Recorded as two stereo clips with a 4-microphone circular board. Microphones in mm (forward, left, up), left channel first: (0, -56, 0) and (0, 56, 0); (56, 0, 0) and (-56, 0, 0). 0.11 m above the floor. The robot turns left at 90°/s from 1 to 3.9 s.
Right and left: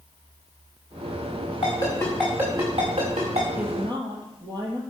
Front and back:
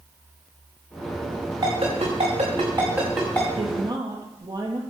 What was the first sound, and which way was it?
A ringtone, 125° right.